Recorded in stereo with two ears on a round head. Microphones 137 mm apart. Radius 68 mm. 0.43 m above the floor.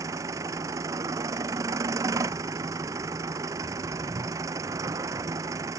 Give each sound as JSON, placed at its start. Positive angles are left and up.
{"t": 0.0, "sound": "an engine running", "side_deg": -20}